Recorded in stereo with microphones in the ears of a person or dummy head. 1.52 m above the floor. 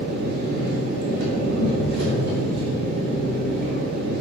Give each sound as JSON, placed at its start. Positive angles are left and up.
{"t": 0.0, "sound": "an engine running", "side_deg": -60, "distance_m": 2.0}